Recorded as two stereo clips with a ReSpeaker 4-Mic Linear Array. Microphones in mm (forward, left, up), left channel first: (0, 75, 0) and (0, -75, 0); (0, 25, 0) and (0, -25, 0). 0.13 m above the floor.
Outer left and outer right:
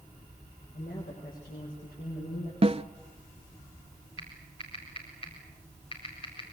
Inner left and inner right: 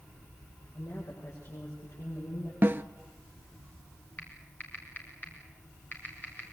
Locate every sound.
0.7 s a woman speaking: 80° left, 8 m
2.6 s a snare drum: 40° right (ahead or behind), 0.6 m
4.2 s typing on a keyboard: 35° left (ahead or behind), 5 m